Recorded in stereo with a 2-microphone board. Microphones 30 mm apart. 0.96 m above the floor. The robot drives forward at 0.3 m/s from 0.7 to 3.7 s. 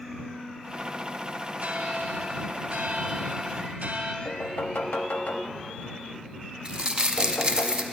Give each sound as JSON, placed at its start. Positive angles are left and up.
{"t": 1.6, "sound": "a bell", "side_deg": -60, "distance_m": 1.6}
{"t": 4.2, "sound": "knocking", "side_deg": 80, "distance_m": 0.9}
{"t": 6.7, "sound": "crumpling", "side_deg": -35, "distance_m": 0.8}